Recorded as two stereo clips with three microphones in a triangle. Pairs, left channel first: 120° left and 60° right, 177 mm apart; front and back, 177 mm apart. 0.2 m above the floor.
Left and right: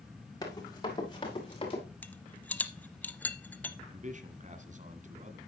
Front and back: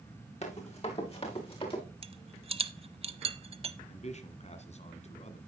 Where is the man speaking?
35° right, 1.6 m.